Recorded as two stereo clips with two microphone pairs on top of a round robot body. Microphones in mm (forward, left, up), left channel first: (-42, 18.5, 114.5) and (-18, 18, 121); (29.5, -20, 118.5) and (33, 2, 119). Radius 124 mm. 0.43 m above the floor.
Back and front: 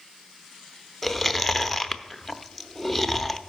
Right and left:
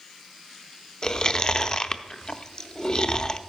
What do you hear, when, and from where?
1.0 s chewing: 120° right, 0.7 m